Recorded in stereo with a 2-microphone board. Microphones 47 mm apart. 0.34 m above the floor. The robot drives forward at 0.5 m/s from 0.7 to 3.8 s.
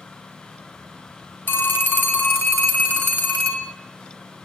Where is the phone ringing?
50° left (ahead or behind), 1.7 m; by 3.7 s 35° left (ahead or behind), 2.5 m.